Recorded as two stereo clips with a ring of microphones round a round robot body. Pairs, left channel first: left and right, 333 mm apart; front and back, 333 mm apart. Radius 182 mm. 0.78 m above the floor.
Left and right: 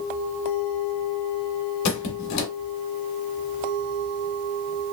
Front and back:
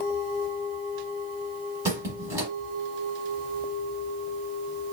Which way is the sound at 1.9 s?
100° left.